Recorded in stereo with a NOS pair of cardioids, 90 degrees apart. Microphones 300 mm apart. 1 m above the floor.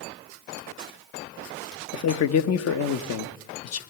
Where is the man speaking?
55° left, 0.8 m.